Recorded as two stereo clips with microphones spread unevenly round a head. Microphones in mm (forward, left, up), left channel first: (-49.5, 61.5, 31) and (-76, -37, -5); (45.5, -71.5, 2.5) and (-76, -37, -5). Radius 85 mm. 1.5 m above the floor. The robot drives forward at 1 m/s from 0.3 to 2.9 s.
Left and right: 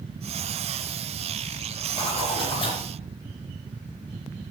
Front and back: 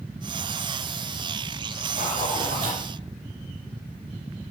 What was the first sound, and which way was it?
A zipper, 95° left.